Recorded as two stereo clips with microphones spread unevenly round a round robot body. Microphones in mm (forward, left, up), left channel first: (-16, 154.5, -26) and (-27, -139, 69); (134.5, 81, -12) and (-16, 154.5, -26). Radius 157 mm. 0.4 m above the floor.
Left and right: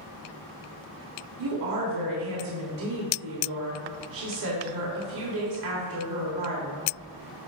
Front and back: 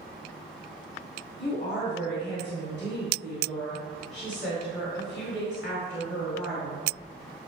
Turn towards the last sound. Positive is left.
turn(degrees=-110)